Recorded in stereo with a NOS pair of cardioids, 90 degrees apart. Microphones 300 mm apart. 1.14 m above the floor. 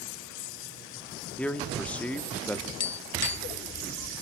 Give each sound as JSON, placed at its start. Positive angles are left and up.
{"t": 1.4, "sound": "a man speaking", "azimuth_deg": 5, "distance_m": 2.5}
{"t": 2.8, "sound": "tapping", "azimuth_deg": 60, "distance_m": 1.2}